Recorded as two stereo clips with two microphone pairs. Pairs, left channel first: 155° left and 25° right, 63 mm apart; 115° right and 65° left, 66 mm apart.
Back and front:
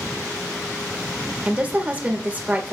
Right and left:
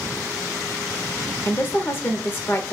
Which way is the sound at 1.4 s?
70° right.